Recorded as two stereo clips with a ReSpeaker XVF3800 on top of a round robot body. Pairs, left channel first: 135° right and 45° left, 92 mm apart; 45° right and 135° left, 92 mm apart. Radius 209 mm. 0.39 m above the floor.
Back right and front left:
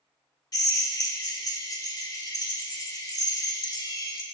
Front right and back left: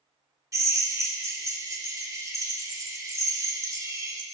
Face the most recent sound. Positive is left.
turn(degrees=-175)